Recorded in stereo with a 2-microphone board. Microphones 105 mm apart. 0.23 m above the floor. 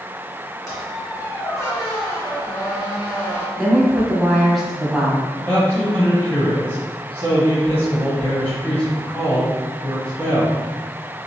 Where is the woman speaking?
Centre (ahead or behind), 1.1 m.